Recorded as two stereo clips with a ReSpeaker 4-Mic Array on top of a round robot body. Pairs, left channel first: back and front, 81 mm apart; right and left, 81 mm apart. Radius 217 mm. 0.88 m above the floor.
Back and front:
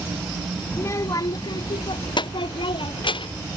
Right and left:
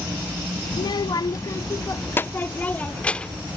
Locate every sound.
0.7 s a child speaking: 115° right; by 3.5 s 170° right